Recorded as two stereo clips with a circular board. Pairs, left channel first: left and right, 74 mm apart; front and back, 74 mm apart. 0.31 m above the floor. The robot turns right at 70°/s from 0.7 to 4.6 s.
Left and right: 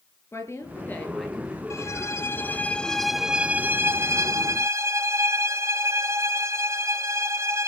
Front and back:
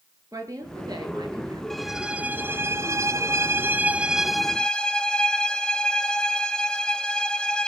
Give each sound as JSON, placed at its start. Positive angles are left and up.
{"t": 0.3, "sound": "a woman speaking", "azimuth_deg": 145, "distance_m": 6.0}
{"t": 1.7, "sound": "a violin", "azimuth_deg": 85, "distance_m": 0.9}